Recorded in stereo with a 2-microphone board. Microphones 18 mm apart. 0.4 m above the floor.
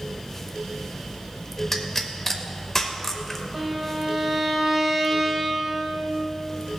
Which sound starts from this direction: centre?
A pop, at 1.7 s.